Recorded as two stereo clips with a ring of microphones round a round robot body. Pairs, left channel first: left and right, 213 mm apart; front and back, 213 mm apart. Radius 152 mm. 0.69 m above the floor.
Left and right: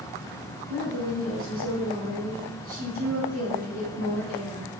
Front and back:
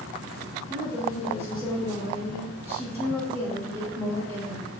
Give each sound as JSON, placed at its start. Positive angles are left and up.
{"t": 0.7, "sound": "a woman speaking", "azimuth_deg": -120, "distance_m": 1.6}